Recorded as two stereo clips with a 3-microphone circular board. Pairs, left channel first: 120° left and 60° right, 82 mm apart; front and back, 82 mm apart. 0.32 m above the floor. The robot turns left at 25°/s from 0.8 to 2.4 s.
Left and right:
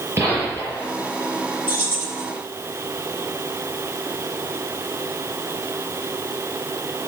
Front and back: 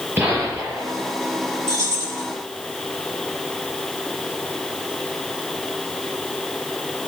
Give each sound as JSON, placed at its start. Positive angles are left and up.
{"t": 0.2, "sound": "a gunshot", "azimuth_deg": -115, "distance_m": 6.0}
{"t": 1.7, "sound": "keys jangling", "azimuth_deg": -125, "distance_m": 6.5}